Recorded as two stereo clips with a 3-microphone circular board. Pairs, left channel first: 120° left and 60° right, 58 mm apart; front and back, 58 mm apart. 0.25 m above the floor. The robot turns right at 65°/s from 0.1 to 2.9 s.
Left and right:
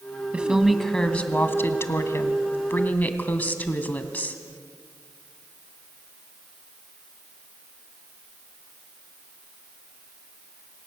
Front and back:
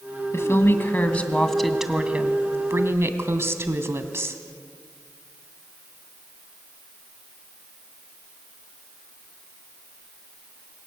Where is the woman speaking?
5° left, 2 m; by 4.4 s 170° left, 2 m.